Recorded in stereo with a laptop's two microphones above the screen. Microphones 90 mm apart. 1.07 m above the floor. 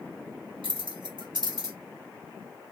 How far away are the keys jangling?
About 0.7 m.